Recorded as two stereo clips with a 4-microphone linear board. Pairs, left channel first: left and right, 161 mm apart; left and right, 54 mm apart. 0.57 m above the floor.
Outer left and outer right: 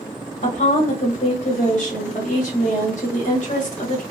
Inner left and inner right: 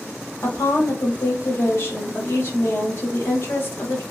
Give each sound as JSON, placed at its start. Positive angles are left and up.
{"t": 0.4, "sound": "a woman speaking", "side_deg": 50, "distance_m": 1.3}